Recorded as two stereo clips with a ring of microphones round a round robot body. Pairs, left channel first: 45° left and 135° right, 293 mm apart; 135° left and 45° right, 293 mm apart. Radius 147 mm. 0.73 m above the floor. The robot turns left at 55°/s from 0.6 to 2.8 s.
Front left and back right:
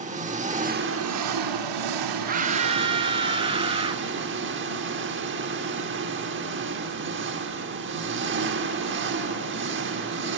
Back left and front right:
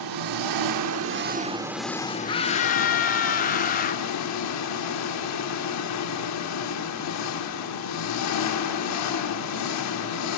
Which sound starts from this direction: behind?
A scream, at 2.3 s.